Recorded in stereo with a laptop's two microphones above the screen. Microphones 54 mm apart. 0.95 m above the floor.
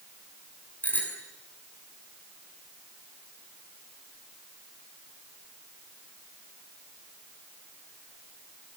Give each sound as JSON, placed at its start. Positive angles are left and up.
{"t": 0.8, "sound": "a bicycle bell", "side_deg": 30, "distance_m": 6.5}